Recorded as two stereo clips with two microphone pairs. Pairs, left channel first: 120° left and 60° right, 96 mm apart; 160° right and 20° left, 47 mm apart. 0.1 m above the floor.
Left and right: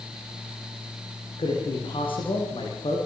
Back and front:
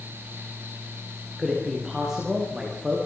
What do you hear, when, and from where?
1.4 s a man speaking: 100° left, 8.5 m